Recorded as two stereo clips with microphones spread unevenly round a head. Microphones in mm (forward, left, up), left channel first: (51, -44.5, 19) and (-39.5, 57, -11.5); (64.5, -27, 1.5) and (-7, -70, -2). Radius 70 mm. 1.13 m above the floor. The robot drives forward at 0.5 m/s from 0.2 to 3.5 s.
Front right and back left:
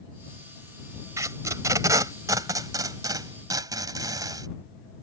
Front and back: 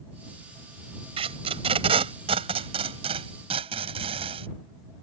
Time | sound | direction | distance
1.2 | tape being pulled | 155° right | ?